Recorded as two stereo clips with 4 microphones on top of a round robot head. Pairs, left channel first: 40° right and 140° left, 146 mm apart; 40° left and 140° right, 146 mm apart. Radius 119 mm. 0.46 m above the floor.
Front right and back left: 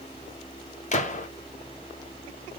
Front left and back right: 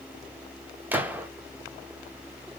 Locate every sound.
0.9 s a gunshot: 65° right, 0.8 m